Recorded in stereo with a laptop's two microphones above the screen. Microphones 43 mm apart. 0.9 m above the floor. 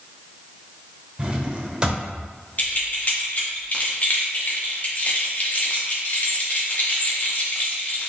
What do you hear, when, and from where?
1.2 s a drawer: 25° right (ahead or behind), 0.7 m
2.6 s keys jangling: 40° left (ahead or behind), 0.7 m